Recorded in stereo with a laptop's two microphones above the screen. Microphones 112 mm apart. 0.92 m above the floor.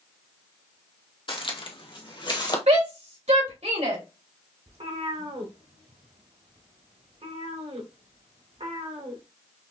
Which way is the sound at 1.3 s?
45° left (ahead or behind).